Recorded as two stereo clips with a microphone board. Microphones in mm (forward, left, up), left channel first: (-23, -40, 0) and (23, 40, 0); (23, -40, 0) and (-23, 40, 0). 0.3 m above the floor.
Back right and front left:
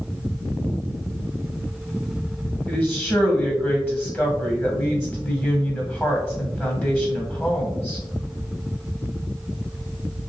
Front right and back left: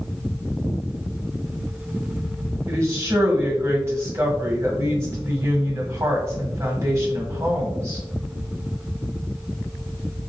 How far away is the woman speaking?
About 1.4 m.